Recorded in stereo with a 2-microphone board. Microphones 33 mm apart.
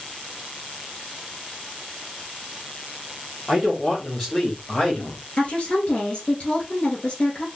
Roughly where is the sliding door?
I don't hear a sliding door.